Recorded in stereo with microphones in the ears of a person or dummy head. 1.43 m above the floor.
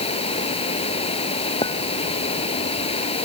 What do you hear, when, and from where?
0.0 s running water: 35° left (ahead or behind)
1.6 s a clink: 25° left (ahead or behind)